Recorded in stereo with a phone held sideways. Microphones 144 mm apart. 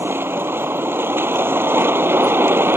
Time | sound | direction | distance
0.0 | a vehicle | 15° right (ahead or behind) | ?